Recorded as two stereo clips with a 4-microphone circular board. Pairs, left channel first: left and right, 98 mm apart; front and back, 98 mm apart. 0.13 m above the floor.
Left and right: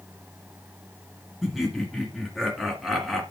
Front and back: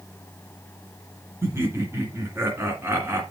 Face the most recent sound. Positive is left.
turn(degrees=180)